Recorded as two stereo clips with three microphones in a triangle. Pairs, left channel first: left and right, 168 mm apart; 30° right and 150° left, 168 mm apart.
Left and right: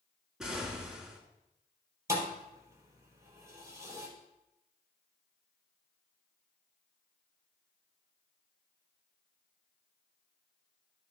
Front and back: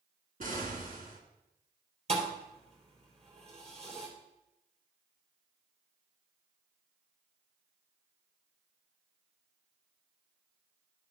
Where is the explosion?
175° right, 1.8 m.